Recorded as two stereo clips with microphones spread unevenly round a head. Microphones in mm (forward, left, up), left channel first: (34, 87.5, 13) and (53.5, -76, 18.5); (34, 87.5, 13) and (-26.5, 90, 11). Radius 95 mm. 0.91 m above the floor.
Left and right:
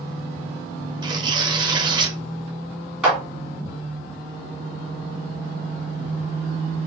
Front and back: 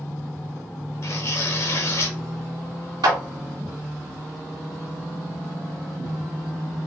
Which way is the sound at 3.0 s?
170° right.